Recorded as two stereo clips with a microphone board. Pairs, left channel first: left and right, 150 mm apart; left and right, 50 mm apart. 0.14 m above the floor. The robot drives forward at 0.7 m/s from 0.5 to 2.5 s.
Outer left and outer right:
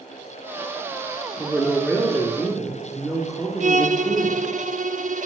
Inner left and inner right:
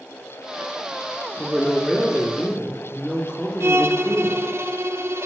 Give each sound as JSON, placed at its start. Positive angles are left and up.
{"t": 1.4, "sound": "a woman speaking", "side_deg": -5, "distance_m": 1.3}
{"t": 3.6, "sound": "a violin", "side_deg": -60, "distance_m": 0.6}